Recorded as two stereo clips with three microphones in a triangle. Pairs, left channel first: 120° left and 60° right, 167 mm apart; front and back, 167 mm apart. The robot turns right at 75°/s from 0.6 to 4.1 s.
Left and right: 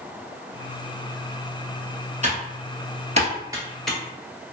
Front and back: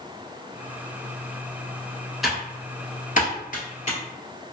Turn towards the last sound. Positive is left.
turn(degrees=50)